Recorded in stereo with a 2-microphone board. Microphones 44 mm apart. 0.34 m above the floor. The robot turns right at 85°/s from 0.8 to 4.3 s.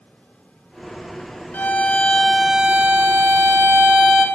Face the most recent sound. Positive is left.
turn(degrees=-10)